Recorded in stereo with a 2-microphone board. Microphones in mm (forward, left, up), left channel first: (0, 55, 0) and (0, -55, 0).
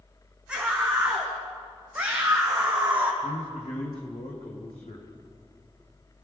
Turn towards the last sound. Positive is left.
turn(degrees=70)  # may be behind; listen again after turning